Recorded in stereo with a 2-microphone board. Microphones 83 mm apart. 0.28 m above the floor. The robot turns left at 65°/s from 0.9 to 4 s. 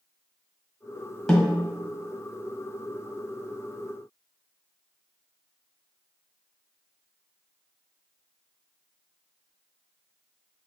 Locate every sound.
1.3 s a snare drum: centre (ahead or behind), 1.4 m; by 1.6 s 15° right (ahead or behind), 1.4 m